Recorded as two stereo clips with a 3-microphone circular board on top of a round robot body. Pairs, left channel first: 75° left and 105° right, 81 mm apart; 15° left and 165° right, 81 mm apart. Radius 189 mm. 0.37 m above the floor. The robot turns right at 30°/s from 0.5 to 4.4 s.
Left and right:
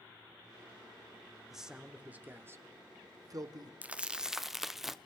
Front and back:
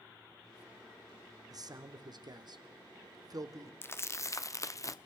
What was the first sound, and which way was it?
A man speaking, 170° left.